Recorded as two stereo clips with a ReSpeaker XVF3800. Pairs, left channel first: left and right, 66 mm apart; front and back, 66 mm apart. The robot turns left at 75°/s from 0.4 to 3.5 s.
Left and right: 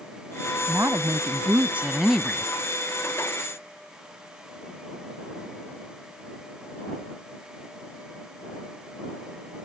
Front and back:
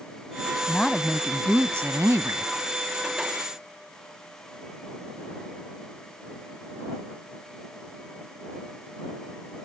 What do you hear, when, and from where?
0.7 s a woman speaking: 70° right; by 2.5 s 155° left